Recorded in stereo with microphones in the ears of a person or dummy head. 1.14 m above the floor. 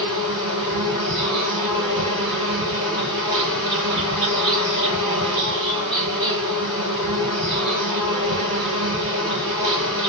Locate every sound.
0.0 s an insect: 5° left (ahead or behind), 2 m